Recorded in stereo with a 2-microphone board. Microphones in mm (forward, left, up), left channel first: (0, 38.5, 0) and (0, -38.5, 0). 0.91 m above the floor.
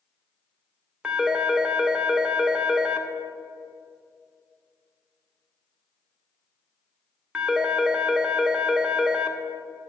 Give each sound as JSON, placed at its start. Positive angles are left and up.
{"t": 1.0, "sound": "a phone ringing", "side_deg": -10, "distance_m": 0.5}